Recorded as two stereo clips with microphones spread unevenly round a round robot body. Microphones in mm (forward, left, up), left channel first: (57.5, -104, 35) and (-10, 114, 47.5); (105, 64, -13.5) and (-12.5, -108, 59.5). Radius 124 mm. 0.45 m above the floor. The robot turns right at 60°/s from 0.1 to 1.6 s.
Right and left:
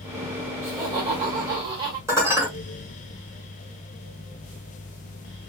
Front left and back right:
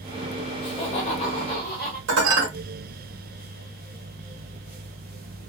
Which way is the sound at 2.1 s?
175° right.